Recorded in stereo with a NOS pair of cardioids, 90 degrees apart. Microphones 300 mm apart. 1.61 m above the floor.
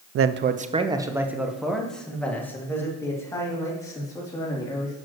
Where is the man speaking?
50° right, 0.5 m; by 5.0 s 15° left, 4 m.